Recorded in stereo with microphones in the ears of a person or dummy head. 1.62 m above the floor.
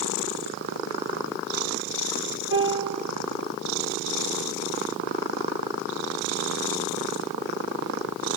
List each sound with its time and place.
2.5 s a piano: 70° right (ahead or behind), 5.5 m